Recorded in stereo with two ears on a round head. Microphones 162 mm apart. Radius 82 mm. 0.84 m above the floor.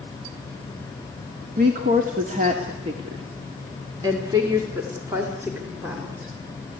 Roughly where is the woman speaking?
Right.